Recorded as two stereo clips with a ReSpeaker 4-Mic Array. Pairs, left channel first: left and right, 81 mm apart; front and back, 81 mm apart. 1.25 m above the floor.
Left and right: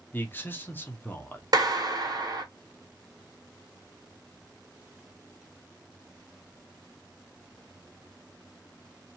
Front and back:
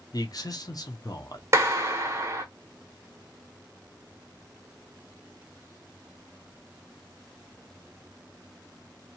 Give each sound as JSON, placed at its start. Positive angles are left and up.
{"t": 0.1, "sound": "a man speaking", "azimuth_deg": 25, "distance_m": 0.6}
{"t": 1.5, "sound": "a clap", "azimuth_deg": -125, "distance_m": 0.9}